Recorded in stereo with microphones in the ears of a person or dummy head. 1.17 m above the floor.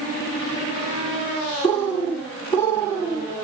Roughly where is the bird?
Centre.